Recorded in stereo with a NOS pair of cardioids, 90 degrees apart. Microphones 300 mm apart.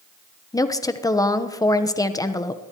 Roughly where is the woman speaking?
Ahead.